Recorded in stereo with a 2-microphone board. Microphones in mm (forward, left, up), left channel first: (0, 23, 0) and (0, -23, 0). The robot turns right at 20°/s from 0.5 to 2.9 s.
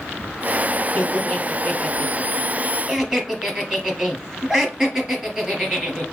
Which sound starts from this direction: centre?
Laughter, at 0.9 s.